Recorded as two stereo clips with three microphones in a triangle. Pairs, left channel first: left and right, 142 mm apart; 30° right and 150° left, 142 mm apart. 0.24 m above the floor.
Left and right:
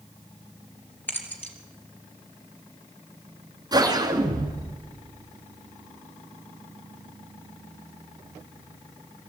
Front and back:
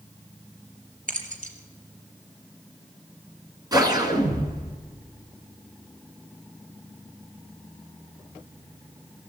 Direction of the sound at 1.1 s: 170° left.